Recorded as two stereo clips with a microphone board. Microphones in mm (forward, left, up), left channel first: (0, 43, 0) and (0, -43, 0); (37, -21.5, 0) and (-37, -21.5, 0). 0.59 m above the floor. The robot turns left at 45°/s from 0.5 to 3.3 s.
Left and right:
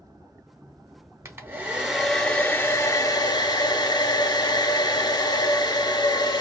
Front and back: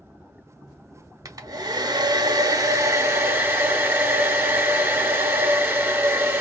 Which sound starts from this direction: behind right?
A hair dryer, at 1.2 s.